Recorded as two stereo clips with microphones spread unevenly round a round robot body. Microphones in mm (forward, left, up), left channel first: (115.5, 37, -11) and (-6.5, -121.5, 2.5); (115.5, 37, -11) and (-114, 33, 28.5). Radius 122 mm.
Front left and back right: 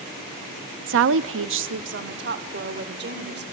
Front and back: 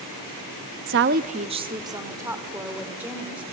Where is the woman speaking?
145° right, 0.6 m; by 3.4 s 90° right, 3.5 m.